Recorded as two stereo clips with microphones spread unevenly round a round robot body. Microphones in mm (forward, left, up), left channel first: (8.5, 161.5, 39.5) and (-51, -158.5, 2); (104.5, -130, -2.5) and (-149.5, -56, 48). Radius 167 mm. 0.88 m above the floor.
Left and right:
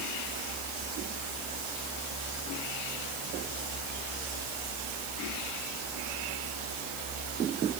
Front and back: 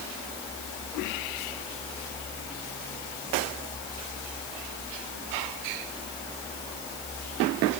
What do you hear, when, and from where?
Only background noise.